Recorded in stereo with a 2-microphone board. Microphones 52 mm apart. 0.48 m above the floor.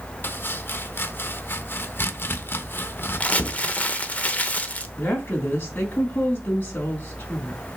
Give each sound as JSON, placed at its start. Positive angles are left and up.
{"t": 0.2, "sound": "chopping", "side_deg": 40, "distance_m": 0.8}
{"t": 3.2, "sound": "crumpling", "side_deg": 25, "distance_m": 0.9}
{"t": 5.0, "sound": "a woman speaking", "side_deg": 35, "distance_m": 3.5}